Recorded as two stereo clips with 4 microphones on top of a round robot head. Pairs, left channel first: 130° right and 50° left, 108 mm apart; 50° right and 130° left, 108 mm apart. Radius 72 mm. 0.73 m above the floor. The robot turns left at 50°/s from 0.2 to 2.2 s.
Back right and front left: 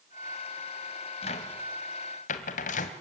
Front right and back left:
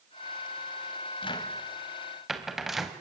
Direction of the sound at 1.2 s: 90° right.